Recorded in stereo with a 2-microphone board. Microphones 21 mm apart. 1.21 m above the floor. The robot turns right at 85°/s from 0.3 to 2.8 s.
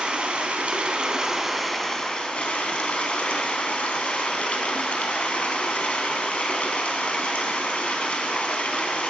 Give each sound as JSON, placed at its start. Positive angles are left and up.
{"t": 0.0, "sound": "running water", "azimuth_deg": -110, "distance_m": 4.0}